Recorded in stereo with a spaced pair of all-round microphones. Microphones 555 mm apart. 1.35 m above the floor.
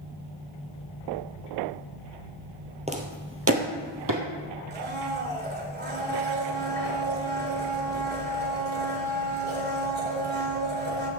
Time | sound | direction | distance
2.9 | footsteps | 10° right (ahead or behind) | 1.7 m
4.7 | a blender | 20° right (ahead or behind) | 3 m